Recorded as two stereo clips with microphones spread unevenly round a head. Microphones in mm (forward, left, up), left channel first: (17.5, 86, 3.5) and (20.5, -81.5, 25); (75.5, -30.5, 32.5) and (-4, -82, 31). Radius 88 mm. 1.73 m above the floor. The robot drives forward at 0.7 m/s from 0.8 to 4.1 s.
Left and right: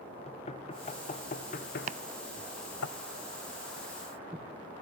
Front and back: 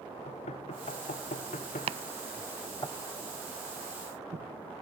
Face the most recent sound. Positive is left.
turn(degrees=-170)